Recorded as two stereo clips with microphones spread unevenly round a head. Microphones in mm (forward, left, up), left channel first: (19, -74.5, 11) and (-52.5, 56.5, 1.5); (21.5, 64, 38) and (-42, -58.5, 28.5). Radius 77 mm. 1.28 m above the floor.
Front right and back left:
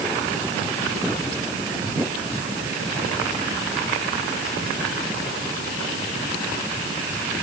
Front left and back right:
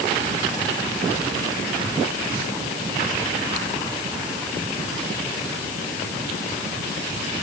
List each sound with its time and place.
Only background noise.